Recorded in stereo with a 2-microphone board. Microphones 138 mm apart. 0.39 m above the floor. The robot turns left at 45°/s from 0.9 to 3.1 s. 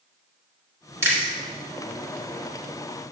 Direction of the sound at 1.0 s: 20° right (ahead or behind).